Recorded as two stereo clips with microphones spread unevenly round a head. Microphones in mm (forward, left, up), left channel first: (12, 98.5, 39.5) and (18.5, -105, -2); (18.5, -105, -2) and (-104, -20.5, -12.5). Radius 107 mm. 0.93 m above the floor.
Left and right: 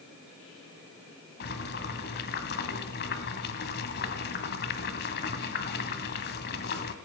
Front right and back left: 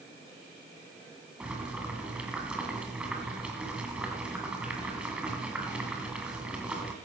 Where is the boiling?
60° left, 1.8 m.